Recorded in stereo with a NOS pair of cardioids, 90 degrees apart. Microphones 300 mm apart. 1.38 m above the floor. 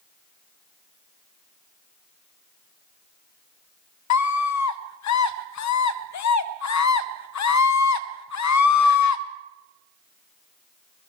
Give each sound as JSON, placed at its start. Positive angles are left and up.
{"t": 4.1, "sound": "a scream", "azimuth_deg": 70, "distance_m": 0.7}